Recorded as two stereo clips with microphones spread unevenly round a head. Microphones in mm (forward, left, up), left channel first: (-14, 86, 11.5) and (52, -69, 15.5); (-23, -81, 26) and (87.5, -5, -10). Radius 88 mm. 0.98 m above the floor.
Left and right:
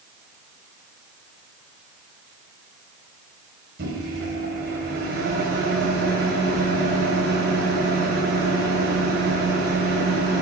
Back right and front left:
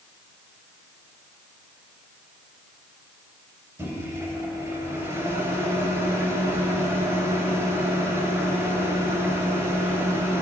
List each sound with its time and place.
3.8 s a microwave: 40° right, 4 m